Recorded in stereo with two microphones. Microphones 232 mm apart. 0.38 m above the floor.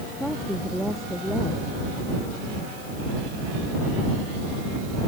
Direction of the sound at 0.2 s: Centre (ahead or behind).